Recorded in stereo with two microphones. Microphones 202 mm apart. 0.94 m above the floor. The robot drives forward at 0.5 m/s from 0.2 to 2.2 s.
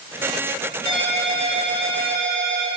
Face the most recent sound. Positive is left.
turn(degrees=-65)  # may be behind; listen again after turning